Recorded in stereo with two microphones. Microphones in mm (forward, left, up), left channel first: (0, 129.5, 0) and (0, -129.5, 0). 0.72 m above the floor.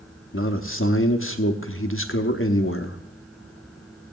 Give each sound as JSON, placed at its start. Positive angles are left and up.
{"t": 0.3, "sound": "a man speaking", "side_deg": 50, "distance_m": 1.0}